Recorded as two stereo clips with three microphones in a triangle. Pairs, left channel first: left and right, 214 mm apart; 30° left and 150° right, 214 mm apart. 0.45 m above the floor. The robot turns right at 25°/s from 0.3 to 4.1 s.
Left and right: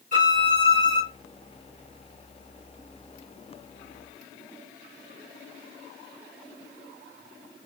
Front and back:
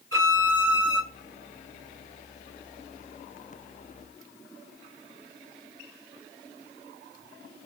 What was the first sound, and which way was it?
A violin, 140° right.